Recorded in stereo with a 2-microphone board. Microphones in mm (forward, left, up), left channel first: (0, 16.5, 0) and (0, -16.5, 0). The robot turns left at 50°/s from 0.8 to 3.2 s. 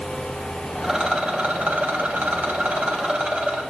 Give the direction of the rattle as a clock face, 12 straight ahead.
12 o'clock.